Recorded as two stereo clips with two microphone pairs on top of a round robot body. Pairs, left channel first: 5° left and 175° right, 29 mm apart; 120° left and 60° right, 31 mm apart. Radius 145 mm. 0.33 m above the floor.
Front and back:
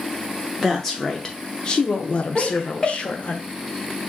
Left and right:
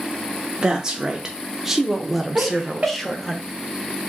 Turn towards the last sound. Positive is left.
turn(degrees=-60)